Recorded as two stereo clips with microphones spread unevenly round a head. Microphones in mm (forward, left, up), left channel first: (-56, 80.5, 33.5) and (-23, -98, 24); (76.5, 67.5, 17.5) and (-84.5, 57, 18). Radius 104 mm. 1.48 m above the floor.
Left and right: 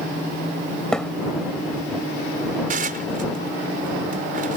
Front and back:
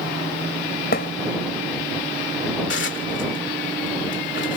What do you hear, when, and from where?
0.9 s a thud: 15° left
2.7 s dishes clattering: 25° right